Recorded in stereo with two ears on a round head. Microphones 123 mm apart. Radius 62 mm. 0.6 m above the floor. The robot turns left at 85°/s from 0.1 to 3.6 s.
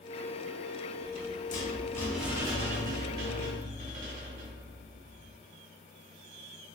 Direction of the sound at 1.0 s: 100° left.